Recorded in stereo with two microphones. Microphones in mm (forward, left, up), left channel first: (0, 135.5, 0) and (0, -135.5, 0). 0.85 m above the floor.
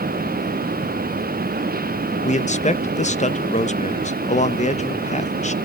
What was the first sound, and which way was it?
A man speaking, 25° left (ahead or behind).